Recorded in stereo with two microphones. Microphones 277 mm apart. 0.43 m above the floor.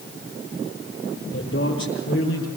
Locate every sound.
1.3 s a man speaking: 50° left (ahead or behind), 9 m